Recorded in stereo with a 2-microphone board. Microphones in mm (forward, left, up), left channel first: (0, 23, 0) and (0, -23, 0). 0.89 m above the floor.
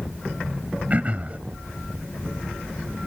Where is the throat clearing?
35° right (ahead or behind).